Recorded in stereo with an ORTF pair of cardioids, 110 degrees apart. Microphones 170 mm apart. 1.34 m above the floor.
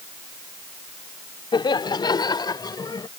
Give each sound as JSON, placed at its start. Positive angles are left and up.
{"t": 1.5, "sound": "laughter", "azimuth_deg": 30}